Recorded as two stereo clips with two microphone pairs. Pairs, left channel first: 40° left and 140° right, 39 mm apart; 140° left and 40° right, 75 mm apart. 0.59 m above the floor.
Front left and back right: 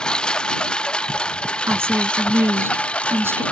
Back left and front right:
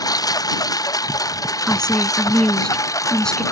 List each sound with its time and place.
0.0 s a lawn mower: 105° left; by 3.5 s 95° left
1.7 s a woman speaking: 140° right